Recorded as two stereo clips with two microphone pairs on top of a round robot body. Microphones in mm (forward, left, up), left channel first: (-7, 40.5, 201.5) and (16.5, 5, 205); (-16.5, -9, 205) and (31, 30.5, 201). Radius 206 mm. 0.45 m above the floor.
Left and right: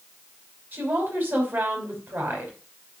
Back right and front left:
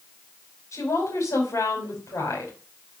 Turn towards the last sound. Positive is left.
turn(degrees=-105)